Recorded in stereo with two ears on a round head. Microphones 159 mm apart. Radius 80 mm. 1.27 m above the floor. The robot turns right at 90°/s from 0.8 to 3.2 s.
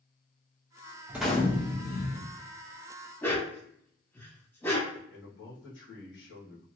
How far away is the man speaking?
About 1.5 m.